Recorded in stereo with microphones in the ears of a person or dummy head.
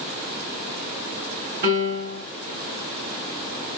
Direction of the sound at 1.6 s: 40° right (ahead or behind).